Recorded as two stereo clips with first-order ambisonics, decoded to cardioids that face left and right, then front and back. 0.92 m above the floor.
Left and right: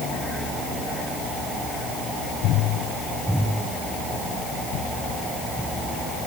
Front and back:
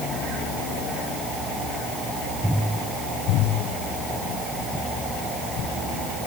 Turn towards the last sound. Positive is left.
No sound to turn to.